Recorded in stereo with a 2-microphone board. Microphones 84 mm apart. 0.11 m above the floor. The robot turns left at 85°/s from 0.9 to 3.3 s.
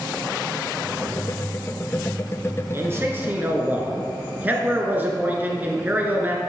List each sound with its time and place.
2.7 s a man speaking: 80° right, 1.4 m; by 6.4 s 130° right, 1.4 m